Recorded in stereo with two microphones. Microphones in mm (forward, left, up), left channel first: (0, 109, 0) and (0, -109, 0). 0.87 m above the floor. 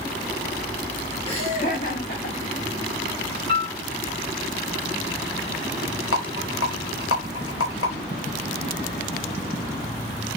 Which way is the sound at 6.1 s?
80° left.